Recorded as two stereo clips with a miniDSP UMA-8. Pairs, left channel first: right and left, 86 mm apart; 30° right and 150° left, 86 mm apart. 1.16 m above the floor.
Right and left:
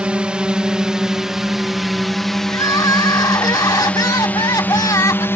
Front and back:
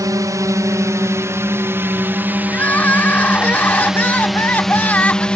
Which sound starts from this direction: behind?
A drone, at 0.0 s.